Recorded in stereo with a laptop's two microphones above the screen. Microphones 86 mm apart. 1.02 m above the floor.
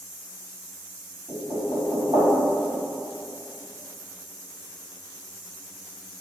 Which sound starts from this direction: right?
Knocking, at 1.3 s.